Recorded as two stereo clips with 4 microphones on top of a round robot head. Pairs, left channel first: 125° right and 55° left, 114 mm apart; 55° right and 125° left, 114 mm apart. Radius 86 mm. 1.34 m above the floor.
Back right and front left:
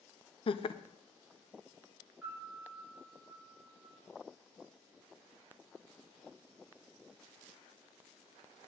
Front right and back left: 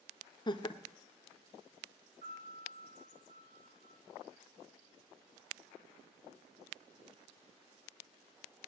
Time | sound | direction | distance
0.5 | laughter | 95° right | 0.8 m
2.2 | a piano | 135° left | 8 m